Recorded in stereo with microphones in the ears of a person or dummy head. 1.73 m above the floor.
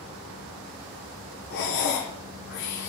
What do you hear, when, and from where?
1.5 s breathing: 60° left (ahead or behind), 1.3 m